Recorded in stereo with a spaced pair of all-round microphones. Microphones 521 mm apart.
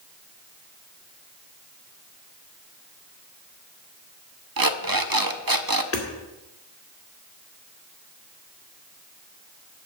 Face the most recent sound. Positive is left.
turn(degrees=25)  # may be behind; listen again after turning